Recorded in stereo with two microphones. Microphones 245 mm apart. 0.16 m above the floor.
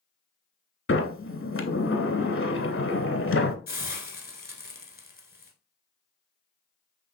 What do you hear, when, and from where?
0.9 s a sliding door: 65° left (ahead or behind), 0.6 m
3.7 s a hiss: 40° left (ahead or behind), 0.9 m